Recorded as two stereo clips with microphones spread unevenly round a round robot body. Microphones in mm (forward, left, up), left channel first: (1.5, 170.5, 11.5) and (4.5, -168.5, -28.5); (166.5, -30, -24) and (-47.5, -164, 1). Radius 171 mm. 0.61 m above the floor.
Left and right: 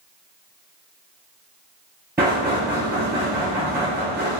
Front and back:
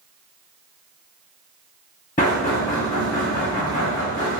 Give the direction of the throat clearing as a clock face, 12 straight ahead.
No throat clearing in this recording.